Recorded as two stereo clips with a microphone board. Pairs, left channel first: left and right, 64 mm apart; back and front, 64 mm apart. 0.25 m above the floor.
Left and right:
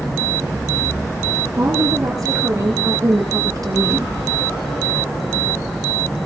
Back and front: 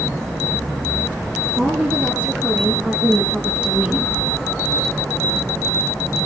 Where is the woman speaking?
70° right, 4.5 m.